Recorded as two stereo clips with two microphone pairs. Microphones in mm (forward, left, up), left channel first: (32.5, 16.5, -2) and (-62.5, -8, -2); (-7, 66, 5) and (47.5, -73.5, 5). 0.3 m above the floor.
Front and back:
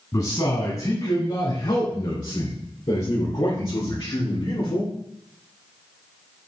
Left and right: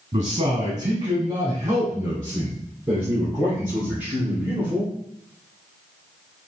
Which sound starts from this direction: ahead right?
A man speaking, at 0.1 s.